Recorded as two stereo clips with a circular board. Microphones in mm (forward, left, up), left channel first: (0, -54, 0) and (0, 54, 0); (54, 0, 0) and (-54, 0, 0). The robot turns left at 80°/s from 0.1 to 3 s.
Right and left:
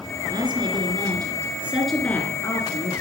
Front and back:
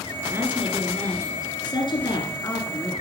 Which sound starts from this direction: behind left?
A woman speaking, at 0.3 s.